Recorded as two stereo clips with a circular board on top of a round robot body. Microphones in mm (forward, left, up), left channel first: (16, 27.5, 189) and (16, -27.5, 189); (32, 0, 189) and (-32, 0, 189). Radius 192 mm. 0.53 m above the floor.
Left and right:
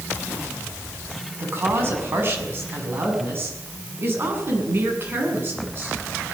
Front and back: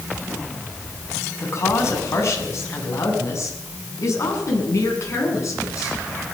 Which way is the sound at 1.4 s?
45° right.